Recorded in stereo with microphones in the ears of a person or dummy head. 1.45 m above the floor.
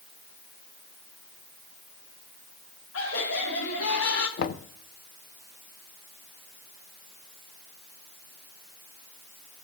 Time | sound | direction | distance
2.9 | laughter | 85° left | 3.5 m
4.4 | knocking | 55° left (ahead or behind) | 0.7 m